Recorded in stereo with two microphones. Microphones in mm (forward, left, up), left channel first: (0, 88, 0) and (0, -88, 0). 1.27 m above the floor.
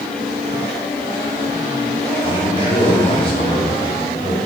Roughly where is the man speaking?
Left.